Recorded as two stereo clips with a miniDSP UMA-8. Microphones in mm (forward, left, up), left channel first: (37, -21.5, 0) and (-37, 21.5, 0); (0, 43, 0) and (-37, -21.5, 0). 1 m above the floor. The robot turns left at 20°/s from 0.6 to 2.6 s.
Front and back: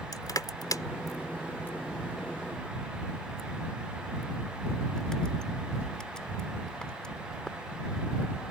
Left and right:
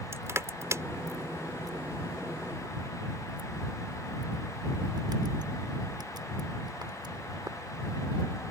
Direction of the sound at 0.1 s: 70° right.